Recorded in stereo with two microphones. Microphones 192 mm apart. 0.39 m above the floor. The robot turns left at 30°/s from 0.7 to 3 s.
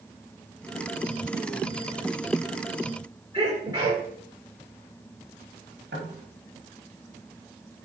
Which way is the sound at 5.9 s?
75° right (ahead or behind).